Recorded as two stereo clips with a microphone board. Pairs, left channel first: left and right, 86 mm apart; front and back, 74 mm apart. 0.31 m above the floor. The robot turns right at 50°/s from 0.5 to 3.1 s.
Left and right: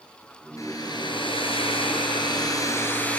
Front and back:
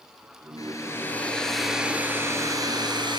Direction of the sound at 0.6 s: 40° left.